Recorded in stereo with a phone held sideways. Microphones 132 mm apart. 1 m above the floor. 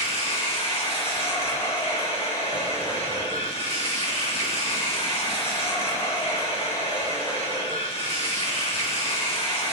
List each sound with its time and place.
0.0 s running water: 50° left (ahead or behind), 1.7 m